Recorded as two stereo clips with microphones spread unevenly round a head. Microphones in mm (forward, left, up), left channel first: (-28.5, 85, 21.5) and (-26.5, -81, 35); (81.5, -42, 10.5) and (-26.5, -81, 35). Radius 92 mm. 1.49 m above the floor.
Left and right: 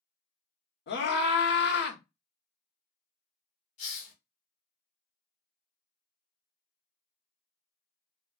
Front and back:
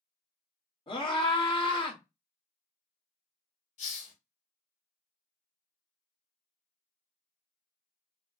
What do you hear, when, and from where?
0.9 s a scream: 75° left, 1.3 m
3.8 s a hiss: 40° left, 1.7 m